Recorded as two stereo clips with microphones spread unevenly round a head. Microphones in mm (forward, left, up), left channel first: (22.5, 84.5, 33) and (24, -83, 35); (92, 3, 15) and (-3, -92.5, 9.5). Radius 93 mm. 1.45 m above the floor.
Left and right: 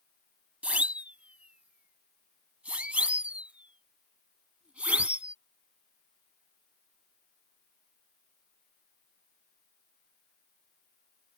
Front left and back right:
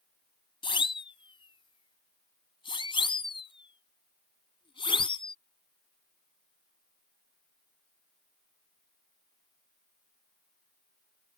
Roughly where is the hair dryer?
No hair dryer in this recording.